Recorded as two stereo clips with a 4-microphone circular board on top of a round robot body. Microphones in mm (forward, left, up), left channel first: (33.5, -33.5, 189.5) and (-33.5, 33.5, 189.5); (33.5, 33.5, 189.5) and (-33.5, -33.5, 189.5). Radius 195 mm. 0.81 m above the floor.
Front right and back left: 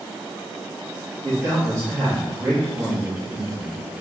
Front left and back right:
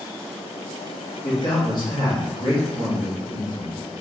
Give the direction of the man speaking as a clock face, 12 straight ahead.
9 o'clock.